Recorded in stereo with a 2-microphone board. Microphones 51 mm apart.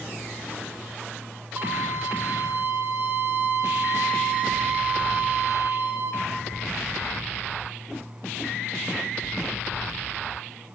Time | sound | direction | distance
1.6 | a violin | 45° right (ahead or behind) | 3 m